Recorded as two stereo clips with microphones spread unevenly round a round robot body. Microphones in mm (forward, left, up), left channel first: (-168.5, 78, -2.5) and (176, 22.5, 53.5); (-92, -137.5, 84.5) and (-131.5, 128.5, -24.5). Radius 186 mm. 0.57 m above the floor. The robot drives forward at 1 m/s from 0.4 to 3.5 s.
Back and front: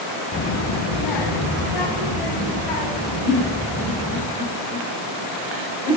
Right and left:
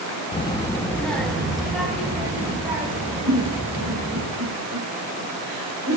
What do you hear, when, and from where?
0.3 s a child speaking: straight behind, 0.6 m
3.3 s a giggle: 75° left, 2.5 m; by 6.0 s 80° left, 2.5 m